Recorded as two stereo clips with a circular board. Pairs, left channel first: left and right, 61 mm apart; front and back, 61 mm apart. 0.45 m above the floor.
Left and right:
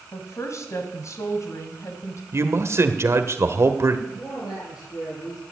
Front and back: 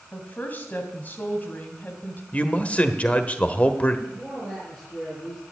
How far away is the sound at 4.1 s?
About 7.5 m.